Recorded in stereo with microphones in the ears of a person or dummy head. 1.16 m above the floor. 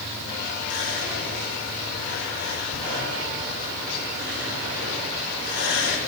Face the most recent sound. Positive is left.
turn(degrees=60)  # may be behind; listen again after turning